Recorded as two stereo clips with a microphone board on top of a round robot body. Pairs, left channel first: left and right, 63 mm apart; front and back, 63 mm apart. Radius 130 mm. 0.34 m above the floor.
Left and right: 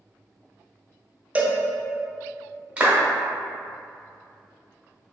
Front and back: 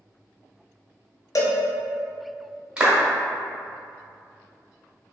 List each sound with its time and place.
1.4 s a cowbell: 25° right, 0.5 m
2.8 s a clap: 125° right, 1.0 m